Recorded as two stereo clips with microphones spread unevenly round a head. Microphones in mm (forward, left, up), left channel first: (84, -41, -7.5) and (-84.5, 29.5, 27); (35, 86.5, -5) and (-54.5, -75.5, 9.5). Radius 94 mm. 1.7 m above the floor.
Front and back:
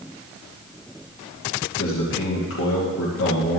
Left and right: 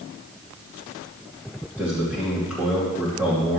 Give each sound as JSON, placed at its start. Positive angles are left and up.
{"t": 1.8, "sound": "a man speaking", "azimuth_deg": -35, "distance_m": 2.5}